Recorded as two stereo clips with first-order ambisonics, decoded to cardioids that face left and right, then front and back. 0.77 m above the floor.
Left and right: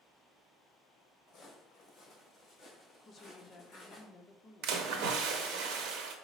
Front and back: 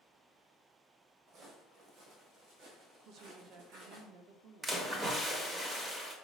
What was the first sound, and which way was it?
Footsteps, 145° left.